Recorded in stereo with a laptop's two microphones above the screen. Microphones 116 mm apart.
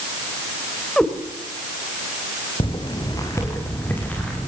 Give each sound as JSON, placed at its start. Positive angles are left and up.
{"t": 1.0, "sound": "a cat meowing", "side_deg": 5, "distance_m": 3.0}
{"t": 2.6, "sound": "footsteps", "side_deg": 45, "distance_m": 3.0}